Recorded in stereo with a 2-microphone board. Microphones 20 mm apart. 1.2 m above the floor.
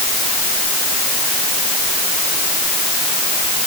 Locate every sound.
Only background noise.